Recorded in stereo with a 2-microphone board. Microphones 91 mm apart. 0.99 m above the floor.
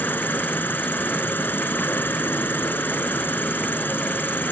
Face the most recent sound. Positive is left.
turn(degrees=20)  # may be behind; listen again after turning